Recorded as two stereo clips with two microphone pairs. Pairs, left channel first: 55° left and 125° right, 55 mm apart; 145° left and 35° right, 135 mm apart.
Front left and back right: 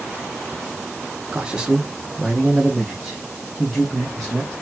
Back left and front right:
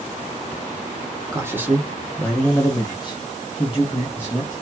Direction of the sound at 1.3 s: 70° right.